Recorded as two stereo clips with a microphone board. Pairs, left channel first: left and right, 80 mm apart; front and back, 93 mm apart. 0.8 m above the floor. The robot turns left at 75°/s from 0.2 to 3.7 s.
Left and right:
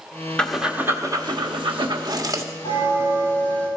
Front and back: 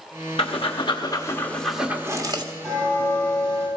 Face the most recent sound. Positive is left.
turn(degrees=10)